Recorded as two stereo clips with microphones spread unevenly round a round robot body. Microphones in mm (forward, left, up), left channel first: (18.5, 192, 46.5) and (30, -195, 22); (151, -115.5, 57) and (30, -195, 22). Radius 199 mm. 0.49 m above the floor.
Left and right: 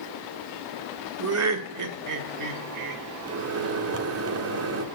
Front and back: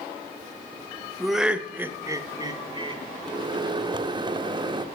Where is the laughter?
70° right, 1.2 m; by 3.0 s 105° right, 1.7 m.